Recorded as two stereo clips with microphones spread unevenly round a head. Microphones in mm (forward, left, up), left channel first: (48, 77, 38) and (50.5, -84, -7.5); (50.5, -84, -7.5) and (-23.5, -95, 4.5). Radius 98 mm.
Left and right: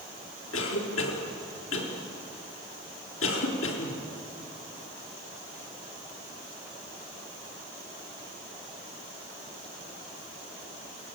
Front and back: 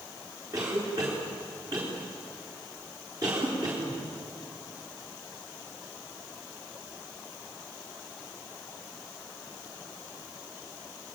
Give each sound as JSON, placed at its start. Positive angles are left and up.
{"t": 0.5, "sound": "a cough", "azimuth_deg": 115, "distance_m": 4.0}